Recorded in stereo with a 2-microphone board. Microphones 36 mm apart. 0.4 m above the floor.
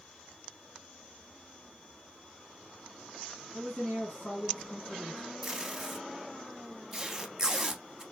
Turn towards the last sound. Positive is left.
turn(degrees=-15)  # may be behind; listen again after turning